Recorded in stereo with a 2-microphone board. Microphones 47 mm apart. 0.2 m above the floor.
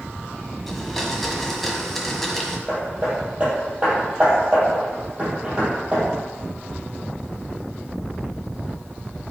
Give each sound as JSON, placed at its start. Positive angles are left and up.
{"t": 0.7, "sound": "a blender", "side_deg": 5, "distance_m": 1.6}
{"t": 2.7, "sound": "hammering", "side_deg": -30, "distance_m": 4.5}